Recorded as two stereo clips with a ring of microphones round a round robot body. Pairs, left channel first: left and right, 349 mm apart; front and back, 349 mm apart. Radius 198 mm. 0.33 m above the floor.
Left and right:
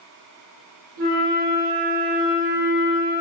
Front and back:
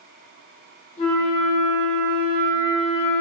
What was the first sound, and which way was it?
A flute, 75° right.